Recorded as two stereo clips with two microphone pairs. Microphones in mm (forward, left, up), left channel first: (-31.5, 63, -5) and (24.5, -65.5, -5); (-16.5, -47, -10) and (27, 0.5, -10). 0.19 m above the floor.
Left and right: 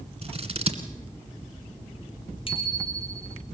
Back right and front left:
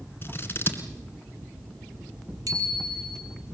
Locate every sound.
0.2 s scissors: 90° right, 2 m
2.5 s a bicycle bell: 65° left, 3 m